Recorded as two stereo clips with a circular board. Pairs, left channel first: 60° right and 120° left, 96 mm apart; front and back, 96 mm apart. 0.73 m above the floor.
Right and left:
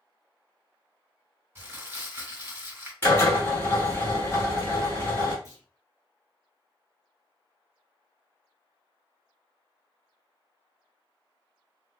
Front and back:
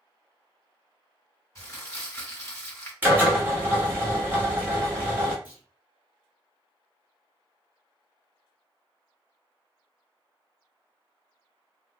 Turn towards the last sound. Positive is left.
turn(degrees=-110)